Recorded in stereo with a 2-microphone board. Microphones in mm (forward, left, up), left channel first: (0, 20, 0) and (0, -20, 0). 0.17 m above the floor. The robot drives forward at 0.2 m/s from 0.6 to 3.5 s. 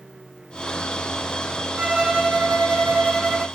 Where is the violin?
30° right (ahead or behind), 0.8 m; by 3.4 s 35° right (ahead or behind), 0.7 m.